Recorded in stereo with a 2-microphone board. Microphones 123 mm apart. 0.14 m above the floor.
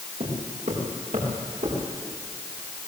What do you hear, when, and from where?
0.2 s footsteps: 80° right, 8.5 m; by 1.8 s 75° right (ahead or behind), 9 m